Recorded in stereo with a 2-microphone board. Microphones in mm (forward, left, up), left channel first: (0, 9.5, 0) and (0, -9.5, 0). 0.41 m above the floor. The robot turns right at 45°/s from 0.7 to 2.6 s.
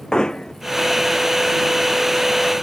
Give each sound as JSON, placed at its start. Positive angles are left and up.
{"t": 0.1, "sound": "hammering", "side_deg": 45}